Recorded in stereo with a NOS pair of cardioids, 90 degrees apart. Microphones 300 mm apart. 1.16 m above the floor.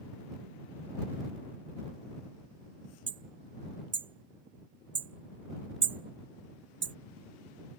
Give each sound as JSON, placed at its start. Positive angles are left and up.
{"t": 3.1, "sound": "hammering", "azimuth_deg": -40}